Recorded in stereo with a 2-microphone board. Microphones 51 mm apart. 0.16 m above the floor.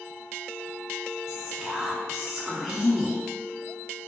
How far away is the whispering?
About 1.8 m.